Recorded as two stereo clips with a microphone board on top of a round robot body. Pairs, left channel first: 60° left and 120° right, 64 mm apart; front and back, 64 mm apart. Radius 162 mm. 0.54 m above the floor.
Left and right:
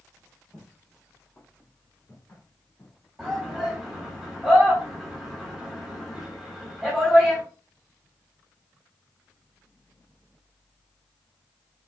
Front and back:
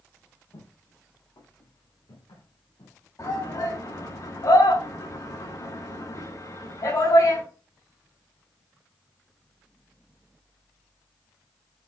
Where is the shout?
35° right, 4.5 m.